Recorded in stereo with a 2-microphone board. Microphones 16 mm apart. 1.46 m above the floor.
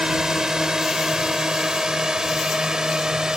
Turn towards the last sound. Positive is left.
turn(degrees=-45)  # may be behind; listen again after turning